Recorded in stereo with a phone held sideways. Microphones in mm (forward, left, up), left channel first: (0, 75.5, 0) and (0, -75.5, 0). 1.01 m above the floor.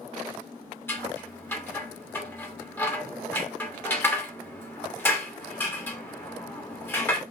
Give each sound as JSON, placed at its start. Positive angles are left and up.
{"t": 0.9, "sound": "scissors", "side_deg": 15, "distance_m": 2.5}